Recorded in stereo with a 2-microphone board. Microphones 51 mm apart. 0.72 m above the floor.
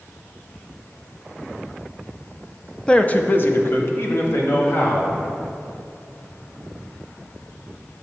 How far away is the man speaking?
About 0.5 m.